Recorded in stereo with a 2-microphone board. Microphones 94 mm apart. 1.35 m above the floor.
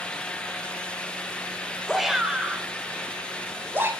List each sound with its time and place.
1.9 s a shout: centre (ahead or behind), 4 m; by 3.9 s 25° right (ahead or behind), 4.5 m